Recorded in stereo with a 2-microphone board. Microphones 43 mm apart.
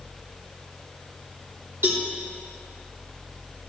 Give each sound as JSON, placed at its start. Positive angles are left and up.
{"t": 1.8, "sound": "a cowbell", "side_deg": -70, "distance_m": 3.0}